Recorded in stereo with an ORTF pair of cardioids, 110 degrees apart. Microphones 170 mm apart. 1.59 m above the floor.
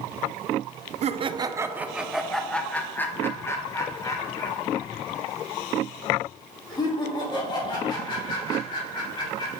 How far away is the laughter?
About 0.6 m.